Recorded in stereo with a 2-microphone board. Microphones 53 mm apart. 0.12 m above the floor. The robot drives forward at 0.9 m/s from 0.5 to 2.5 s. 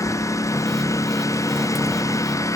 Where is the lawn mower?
80° left; by 2.6 s 85° left.